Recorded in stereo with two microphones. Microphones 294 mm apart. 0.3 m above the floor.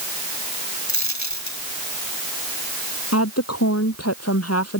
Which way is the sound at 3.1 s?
55° left (ahead or behind).